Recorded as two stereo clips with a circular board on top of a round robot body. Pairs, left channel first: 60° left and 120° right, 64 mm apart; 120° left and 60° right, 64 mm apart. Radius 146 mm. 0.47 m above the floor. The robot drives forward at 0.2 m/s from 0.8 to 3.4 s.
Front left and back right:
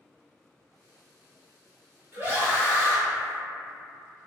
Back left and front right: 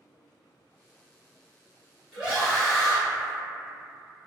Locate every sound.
2.1 s a scream: 135° right, 1.7 m; by 3.0 s 140° right, 1.8 m